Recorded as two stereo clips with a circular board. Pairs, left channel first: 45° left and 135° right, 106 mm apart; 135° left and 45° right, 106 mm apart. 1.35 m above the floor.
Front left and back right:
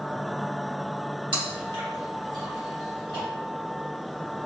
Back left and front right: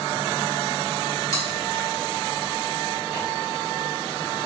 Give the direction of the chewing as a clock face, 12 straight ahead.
6 o'clock.